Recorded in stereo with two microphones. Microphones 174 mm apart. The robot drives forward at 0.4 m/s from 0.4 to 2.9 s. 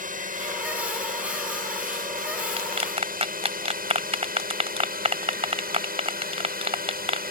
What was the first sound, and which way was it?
A drone, 55° right (ahead or behind).